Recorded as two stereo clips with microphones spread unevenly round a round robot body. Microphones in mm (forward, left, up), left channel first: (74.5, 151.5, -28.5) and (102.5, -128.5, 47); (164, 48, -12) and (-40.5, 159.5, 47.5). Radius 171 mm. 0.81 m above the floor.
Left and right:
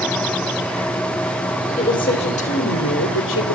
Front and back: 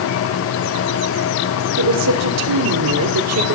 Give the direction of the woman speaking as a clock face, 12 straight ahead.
6 o'clock.